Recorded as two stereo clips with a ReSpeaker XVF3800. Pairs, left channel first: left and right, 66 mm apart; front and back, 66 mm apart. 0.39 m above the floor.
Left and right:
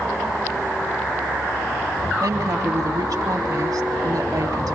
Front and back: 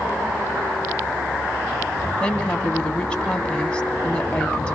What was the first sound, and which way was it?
A woman speaking, 75° right.